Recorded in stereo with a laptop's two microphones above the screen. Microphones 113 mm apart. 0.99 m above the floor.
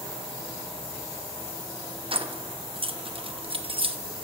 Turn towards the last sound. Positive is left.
turn(degrees=-50)  # may be behind; listen again after turning